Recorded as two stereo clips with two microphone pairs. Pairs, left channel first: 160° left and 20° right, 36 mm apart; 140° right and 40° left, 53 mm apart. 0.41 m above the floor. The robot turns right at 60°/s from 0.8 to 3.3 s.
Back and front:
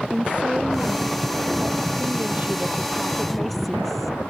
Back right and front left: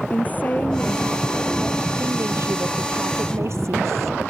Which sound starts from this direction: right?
A woman speaking, at 0.1 s.